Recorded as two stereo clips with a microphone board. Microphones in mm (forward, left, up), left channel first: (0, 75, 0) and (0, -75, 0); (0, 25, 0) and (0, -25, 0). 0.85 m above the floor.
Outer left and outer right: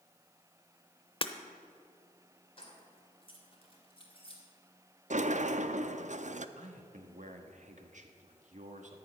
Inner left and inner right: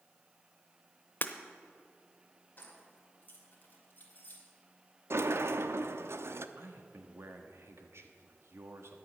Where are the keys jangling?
40° left (ahead or behind), 2.5 m.